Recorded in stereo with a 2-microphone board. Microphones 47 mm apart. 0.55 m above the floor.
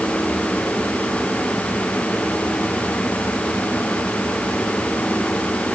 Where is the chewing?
I don't hear chewing.